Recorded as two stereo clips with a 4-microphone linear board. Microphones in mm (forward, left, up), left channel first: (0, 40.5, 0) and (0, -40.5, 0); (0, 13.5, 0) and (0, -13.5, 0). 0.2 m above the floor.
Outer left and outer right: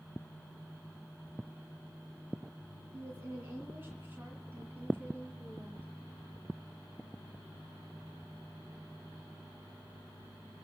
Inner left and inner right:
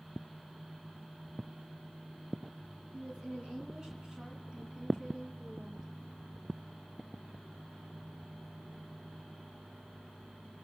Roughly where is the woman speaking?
Right.